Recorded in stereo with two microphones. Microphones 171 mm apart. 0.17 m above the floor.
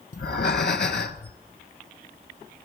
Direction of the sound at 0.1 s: 80° left.